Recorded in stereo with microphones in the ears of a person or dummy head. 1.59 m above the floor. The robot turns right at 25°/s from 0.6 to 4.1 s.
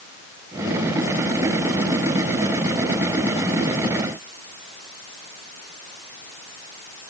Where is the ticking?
No ticking in this recording.